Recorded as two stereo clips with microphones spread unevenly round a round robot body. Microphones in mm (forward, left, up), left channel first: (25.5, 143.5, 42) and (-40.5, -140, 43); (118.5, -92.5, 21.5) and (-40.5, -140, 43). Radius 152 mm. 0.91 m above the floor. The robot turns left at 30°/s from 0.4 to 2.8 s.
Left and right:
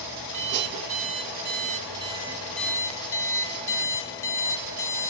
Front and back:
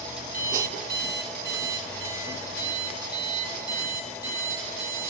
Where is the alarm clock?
130° right, 1.2 m; by 5.1 s 160° left, 1.2 m.